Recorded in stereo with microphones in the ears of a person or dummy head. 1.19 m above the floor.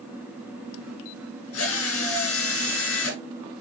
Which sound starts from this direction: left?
A drill, at 1.5 s.